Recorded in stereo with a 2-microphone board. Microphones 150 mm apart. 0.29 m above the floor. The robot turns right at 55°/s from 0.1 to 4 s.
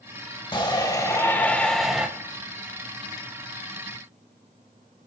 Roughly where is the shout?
Left.